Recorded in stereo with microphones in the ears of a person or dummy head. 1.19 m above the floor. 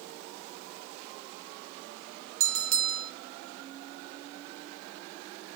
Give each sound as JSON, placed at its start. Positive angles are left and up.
{"t": 2.4, "sound": "a bell", "side_deg": -45, "distance_m": 0.7}